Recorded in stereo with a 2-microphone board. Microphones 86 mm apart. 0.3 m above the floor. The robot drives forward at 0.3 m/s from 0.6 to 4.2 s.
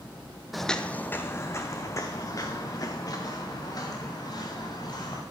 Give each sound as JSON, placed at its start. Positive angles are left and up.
{"t": 0.5, "sound": "footsteps", "side_deg": 0, "distance_m": 0.5}